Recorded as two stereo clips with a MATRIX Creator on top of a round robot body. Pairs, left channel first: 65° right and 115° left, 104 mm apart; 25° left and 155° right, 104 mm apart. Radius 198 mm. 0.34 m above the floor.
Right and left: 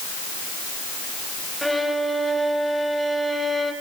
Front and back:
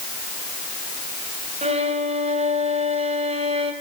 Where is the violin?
155° right, 3.5 m.